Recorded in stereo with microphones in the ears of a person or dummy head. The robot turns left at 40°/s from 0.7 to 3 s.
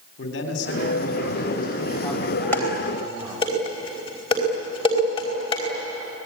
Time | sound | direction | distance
0.2 | a man speaking | 65° left | 4 m
2.5 | dishes clattering | 10° left (ahead or behind) | 4 m